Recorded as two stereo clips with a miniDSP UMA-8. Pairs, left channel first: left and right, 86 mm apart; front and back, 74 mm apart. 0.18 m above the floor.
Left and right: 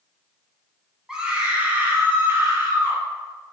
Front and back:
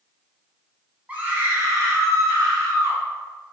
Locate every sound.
1.1 s a scream: 160° right, 1.0 m; by 3.0 s 150° right, 2.5 m